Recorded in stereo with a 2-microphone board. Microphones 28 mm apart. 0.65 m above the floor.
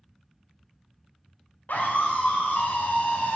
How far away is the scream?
About 3 m.